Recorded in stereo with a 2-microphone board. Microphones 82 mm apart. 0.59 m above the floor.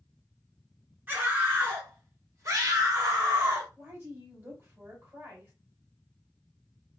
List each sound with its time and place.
1.1 s a scream: 20° right (ahead or behind), 1.6 m; by 3.7 s 35° right (ahead or behind), 1.4 m
3.8 s a woman speaking: 30° right (ahead or behind), 2 m